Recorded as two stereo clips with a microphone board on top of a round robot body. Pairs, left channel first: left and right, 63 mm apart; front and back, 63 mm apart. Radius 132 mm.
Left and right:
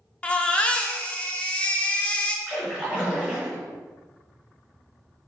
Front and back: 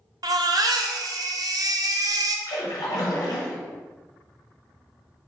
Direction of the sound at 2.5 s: 15° right.